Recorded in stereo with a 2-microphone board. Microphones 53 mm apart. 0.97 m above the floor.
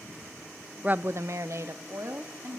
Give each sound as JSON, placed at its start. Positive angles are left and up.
{"t": 0.8, "sound": "a woman speaking", "side_deg": -25, "distance_m": 0.6}